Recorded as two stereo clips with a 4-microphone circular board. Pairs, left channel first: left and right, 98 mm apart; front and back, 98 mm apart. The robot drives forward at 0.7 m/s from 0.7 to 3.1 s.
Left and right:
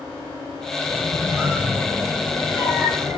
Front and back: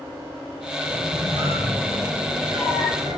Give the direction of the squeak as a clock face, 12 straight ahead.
5 o'clock.